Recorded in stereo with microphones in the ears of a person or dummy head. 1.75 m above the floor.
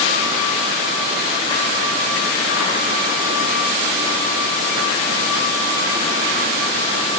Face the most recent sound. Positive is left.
No sound to turn to.